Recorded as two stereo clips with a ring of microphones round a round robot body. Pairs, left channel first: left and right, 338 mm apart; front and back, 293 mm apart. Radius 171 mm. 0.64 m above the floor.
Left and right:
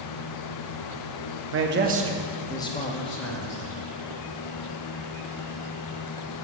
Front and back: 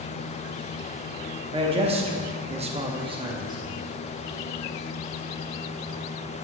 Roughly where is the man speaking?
Behind right.